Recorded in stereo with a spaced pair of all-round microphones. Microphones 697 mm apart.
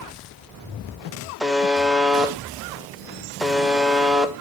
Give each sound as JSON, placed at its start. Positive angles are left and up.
{"t": 1.4, "sound": "a buzzer", "side_deg": 0, "distance_m": 1.0}